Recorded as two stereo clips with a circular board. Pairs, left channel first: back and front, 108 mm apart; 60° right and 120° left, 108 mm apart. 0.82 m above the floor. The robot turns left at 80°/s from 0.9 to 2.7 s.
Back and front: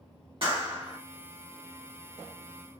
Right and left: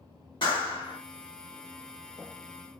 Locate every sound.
0.4 s a clap: 25° right, 1.5 m; by 1.0 s 35° right, 1.5 m